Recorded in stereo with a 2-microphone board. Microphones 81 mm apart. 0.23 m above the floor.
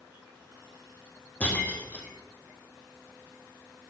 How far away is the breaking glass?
About 2 m.